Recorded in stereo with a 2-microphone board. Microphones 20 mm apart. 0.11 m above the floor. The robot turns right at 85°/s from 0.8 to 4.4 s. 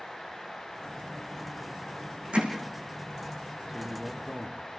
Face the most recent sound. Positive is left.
turn(degrees=10)